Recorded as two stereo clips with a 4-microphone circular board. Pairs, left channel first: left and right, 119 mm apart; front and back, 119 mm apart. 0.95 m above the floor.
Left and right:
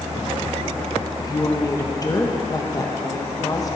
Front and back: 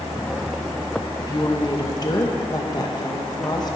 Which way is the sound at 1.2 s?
45° left.